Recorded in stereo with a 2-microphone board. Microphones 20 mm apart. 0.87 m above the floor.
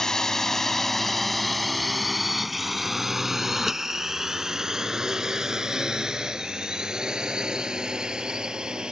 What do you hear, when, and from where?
0.0 s a drone: 30° left (ahead or behind); by 8.9 s 45° right (ahead or behind)